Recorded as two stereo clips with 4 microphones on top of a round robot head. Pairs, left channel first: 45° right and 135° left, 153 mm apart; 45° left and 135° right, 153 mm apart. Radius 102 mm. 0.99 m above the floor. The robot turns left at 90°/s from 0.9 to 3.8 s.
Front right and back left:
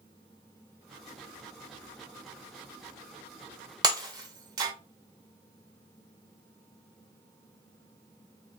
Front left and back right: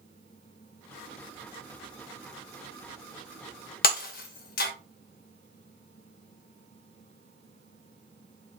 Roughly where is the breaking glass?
Left.